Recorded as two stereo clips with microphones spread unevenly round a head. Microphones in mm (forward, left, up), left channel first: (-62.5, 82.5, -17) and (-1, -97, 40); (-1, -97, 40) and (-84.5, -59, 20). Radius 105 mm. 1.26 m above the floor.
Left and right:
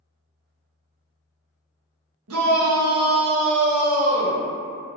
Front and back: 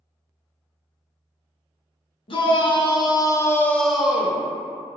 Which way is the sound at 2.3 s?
50° right.